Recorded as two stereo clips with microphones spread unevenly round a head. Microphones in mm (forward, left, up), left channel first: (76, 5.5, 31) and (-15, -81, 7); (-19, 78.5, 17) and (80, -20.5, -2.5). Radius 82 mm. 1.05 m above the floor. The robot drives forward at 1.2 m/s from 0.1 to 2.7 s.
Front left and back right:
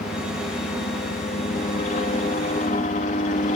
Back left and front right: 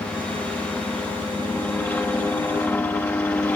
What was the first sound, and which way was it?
A helicopter, 55° left.